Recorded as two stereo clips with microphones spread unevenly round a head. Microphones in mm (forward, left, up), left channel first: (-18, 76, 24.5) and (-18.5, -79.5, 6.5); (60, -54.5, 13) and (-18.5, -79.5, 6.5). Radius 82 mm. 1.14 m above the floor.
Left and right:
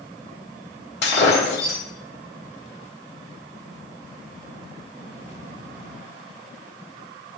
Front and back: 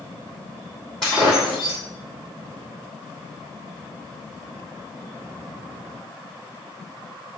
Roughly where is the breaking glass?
Left.